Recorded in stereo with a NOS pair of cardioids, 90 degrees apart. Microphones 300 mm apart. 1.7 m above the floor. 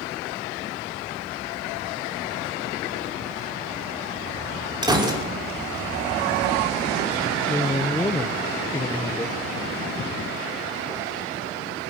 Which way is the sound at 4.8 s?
15° right.